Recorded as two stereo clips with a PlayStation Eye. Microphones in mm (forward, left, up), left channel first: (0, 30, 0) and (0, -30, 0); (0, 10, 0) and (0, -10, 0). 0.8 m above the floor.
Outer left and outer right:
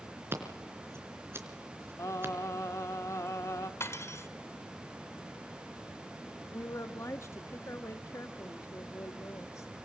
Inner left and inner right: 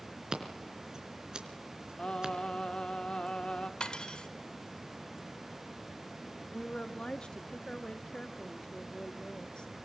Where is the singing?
55° left (ahead or behind), 1.7 m.